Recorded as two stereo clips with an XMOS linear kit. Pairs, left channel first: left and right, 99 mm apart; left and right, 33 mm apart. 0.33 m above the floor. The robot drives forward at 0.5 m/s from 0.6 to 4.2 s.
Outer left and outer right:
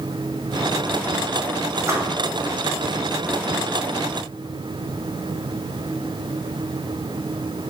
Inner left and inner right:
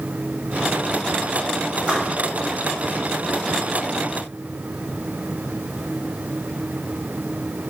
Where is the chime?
No chime in this recording.